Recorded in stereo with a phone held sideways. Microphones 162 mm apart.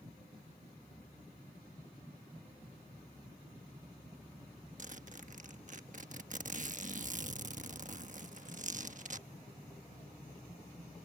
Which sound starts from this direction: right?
A zipper, at 4.8 s.